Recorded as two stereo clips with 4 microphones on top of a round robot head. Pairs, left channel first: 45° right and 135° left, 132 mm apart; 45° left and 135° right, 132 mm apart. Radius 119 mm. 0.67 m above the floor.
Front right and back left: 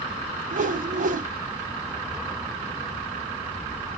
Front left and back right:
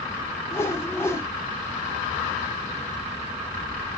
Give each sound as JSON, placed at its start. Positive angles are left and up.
{"t": 0.5, "sound": "a whoosh", "azimuth_deg": 120, "distance_m": 0.8}